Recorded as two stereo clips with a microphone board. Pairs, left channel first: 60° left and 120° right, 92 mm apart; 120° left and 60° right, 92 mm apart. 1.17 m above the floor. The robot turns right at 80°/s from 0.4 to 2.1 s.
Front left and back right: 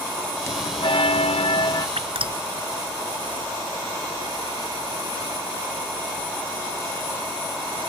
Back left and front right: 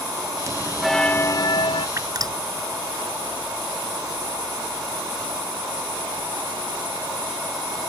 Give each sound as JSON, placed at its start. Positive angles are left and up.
{"t": 0.5, "sound": "a bell", "azimuth_deg": -5}
{"t": 2.0, "sound": "dripping", "azimuth_deg": -115}